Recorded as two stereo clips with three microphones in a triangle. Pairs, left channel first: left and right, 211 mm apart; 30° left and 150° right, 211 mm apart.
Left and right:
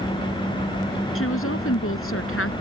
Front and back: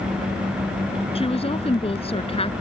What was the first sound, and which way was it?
A woman speaking, 95° left.